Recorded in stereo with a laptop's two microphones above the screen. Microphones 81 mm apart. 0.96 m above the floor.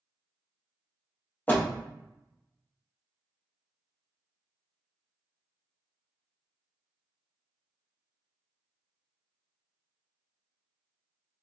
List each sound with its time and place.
1.5 s a door slam: 20° left (ahead or behind), 0.9 m